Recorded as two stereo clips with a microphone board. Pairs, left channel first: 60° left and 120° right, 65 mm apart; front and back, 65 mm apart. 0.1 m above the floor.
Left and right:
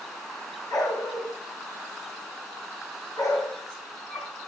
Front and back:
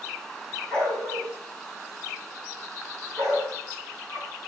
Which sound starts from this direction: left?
A dog barking, at 0.7 s.